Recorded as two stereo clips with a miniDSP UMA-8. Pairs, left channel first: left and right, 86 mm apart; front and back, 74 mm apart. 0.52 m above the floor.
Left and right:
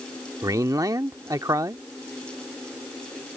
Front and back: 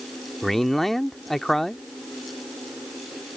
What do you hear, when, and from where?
0.4 s a man speaking: 85° right